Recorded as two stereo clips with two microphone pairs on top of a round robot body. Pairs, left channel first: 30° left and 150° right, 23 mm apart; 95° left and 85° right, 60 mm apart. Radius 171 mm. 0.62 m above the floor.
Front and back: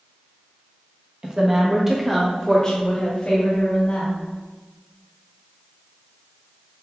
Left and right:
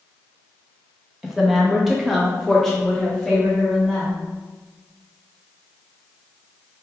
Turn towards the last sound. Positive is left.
turn(degrees=15)